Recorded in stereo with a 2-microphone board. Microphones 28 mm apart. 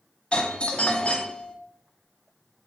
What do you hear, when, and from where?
0.3 s a doorbell: 40° left (ahead or behind), 1.3 m